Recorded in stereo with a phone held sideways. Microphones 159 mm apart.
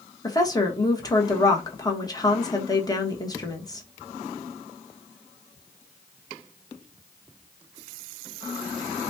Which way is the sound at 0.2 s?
25° left (ahead or behind).